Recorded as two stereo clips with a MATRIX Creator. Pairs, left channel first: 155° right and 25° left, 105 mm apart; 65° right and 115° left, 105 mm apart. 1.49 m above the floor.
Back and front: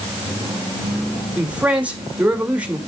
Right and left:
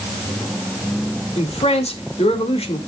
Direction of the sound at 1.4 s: 55° right.